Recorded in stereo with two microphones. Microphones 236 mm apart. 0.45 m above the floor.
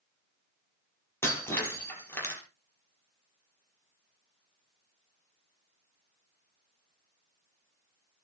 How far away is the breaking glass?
About 5.5 m.